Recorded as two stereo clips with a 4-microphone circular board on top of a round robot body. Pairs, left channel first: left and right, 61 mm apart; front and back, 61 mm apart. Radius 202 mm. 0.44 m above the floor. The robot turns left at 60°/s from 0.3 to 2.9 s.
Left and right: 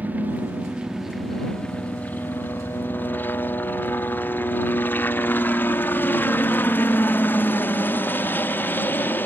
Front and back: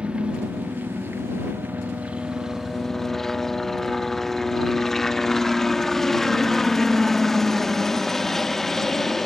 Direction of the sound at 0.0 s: 125° right.